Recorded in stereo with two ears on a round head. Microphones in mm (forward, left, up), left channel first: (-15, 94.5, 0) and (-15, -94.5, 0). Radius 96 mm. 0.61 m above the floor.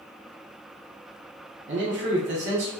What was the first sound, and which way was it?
A man speaking, 45° right (ahead or behind).